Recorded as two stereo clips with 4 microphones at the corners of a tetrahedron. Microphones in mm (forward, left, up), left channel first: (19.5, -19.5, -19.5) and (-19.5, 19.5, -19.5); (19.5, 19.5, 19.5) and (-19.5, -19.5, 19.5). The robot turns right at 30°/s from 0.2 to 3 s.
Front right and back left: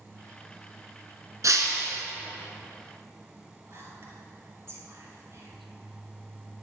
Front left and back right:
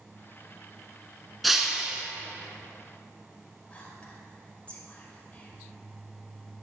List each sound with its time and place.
1.4 s breaking glass: 135° left, 1.2 m; by 2.0 s 155° left, 1.2 m
3.7 s whispering: 110° left, 2.5 m